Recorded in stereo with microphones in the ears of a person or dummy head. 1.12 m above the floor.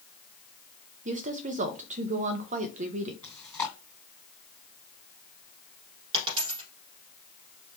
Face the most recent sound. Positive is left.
turn(degrees=-30)  # may be behind; listen again after turning